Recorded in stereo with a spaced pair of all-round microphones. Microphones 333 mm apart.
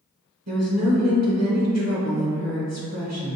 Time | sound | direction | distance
0.5 | a woman speaking | 50° right (ahead or behind) | 1.0 m